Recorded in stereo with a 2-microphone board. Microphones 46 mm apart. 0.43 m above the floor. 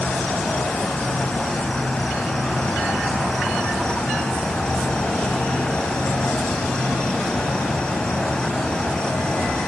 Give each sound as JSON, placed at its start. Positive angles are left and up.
{"t": 0.0, "sound": "an insect", "side_deg": 15, "distance_m": 4.0}